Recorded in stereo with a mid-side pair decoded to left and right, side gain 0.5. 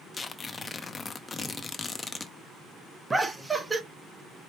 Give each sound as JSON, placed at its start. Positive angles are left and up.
{"t": 0.1, "sound": "tearing paper", "azimuth_deg": 30, "distance_m": 0.7}
{"t": 3.1, "sound": "laughter", "azimuth_deg": -15, "distance_m": 1.1}